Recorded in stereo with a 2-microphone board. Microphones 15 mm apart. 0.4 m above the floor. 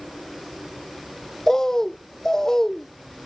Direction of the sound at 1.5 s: 35° left (ahead or behind).